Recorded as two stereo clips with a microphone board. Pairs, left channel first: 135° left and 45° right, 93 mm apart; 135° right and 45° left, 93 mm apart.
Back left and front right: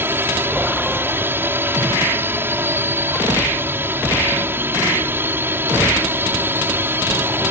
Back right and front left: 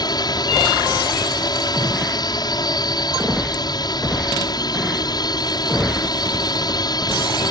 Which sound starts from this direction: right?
A drone, at 0.0 s.